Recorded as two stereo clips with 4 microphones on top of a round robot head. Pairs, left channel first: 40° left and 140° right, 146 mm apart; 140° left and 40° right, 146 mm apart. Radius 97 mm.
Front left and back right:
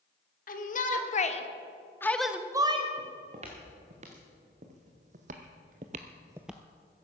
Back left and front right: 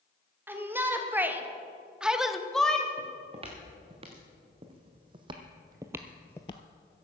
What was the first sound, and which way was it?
A shout, 35° left.